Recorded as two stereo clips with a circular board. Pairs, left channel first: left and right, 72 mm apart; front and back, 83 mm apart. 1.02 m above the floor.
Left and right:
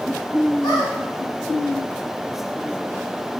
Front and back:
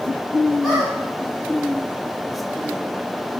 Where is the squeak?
90° left, 1.3 m.